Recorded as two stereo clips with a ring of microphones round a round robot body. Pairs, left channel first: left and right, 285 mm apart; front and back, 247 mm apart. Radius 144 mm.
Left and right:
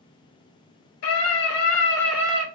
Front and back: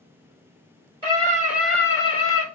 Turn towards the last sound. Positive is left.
turn(degrees=-35)